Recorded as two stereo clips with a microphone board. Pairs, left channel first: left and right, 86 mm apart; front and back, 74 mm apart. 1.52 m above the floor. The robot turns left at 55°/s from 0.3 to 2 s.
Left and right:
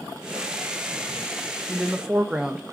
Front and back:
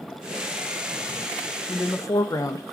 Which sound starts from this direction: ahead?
A woman speaking, at 1.7 s.